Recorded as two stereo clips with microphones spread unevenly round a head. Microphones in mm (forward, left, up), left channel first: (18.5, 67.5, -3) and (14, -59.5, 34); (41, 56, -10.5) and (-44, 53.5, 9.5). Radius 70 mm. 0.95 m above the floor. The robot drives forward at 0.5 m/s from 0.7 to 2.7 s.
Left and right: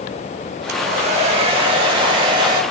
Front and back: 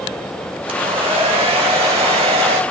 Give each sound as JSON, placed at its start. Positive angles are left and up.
{"t": 0.7, "sound": "a hair dryer", "azimuth_deg": -135, "distance_m": 1.6}